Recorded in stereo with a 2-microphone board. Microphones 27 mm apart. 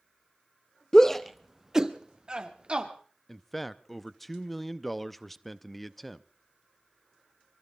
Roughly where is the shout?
Left.